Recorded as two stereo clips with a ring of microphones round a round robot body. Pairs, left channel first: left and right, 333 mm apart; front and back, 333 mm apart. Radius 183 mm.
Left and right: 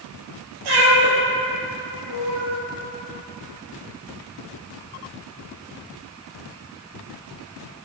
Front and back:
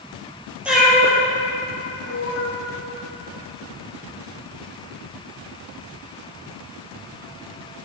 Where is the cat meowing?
95° right, 2 m; by 2.5 s 40° right, 2 m.